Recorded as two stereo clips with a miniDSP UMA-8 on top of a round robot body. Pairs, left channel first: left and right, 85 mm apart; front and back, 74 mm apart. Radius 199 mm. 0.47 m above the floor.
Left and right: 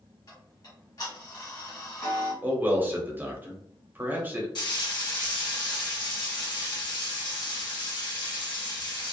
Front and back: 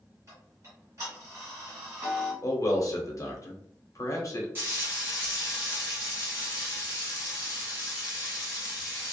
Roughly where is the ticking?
Behind left.